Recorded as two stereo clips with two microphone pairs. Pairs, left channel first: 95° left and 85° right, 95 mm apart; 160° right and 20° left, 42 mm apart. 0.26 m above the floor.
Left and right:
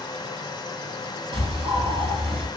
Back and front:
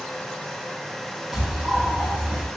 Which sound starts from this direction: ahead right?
A bird, at 1.3 s.